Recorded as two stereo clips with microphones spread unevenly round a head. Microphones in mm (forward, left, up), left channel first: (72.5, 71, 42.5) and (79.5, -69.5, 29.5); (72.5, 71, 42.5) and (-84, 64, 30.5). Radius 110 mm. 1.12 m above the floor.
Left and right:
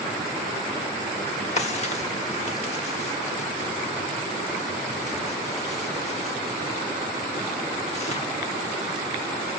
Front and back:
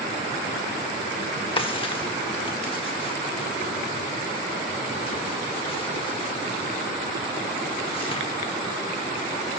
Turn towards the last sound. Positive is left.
turn(degrees=55)